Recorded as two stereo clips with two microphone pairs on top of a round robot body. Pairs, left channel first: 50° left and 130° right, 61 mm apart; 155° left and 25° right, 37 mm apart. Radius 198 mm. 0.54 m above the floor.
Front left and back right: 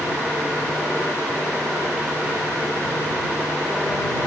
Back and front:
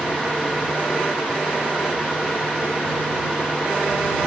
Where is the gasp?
No gasp in this recording.